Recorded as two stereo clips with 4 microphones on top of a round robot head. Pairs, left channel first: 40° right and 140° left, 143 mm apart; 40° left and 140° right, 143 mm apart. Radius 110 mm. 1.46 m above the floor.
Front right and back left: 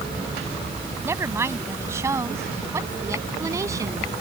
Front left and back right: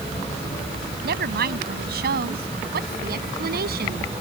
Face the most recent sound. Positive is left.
turn(degrees=-155)